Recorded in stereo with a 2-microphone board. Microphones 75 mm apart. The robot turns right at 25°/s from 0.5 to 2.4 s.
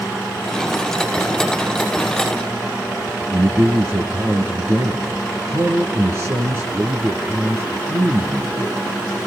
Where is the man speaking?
35° right (ahead or behind), 1.7 m.